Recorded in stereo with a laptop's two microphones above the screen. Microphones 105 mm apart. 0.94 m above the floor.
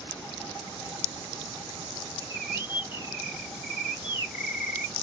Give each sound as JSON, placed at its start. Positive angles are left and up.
{"t": 2.2, "sound": "a bird", "side_deg": 45, "distance_m": 3.0}